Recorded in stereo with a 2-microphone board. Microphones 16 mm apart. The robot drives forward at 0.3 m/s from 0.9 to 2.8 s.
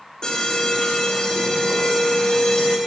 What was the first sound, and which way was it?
An alarm, 65° left (ahead or behind).